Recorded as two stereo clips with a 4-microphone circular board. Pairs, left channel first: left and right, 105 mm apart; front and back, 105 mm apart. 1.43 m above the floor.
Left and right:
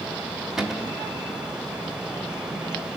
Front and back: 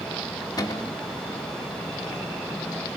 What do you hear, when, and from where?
0.6 s a cupboard door: 5° right, 1.0 m